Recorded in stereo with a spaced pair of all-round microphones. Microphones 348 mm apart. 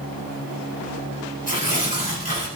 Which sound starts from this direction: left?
Tearing paper, at 1.5 s.